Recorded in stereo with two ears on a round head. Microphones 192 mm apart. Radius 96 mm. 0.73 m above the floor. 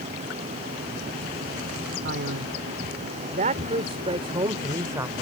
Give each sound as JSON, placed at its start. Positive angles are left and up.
{"t": 2.0, "sound": "a man speaking", "side_deg": -60}